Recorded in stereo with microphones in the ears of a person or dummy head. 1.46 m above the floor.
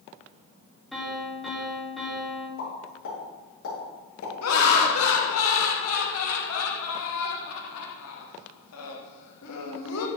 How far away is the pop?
About 3 m.